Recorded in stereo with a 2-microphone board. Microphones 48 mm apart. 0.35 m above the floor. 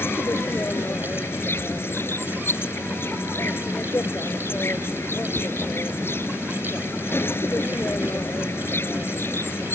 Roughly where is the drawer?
No drawer in this recording.